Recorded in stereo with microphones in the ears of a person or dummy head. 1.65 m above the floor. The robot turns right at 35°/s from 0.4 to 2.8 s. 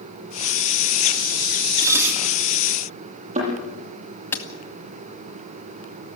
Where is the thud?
30° right (ahead or behind), 8.5 m.